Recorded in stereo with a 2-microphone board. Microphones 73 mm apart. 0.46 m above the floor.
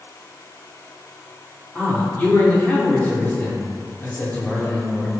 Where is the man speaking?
20° left (ahead or behind), 0.7 m.